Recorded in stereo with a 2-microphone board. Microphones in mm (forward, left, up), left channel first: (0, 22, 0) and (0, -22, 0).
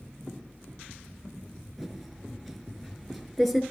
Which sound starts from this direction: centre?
Typing on a keyboard, at 1.8 s.